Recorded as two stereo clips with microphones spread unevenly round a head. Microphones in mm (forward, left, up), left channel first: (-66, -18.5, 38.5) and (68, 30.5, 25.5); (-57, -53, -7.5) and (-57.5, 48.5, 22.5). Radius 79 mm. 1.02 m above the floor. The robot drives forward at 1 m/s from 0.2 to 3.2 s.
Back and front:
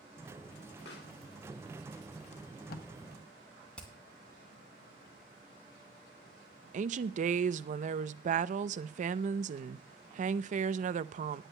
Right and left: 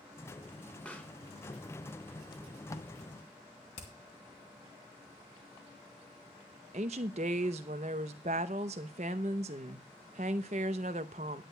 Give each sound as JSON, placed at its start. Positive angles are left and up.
{"t": 0.8, "sound": "a pop", "azimuth_deg": -170, "distance_m": 1.6}
{"t": 2.3, "sound": "tape being pulled", "azimuth_deg": -115, "distance_m": 0.6}
{"t": 3.8, "sound": "hammering", "azimuth_deg": -80, "distance_m": 2.5}
{"t": 6.7, "sound": "a woman speaking", "azimuth_deg": 45, "distance_m": 0.6}